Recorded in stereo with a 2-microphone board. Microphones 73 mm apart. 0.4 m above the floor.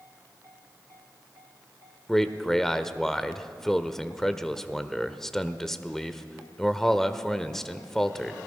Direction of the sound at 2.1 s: 5° left (ahead or behind).